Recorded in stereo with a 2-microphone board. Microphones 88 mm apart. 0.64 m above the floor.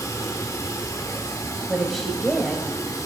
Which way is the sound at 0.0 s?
40° left (ahead or behind).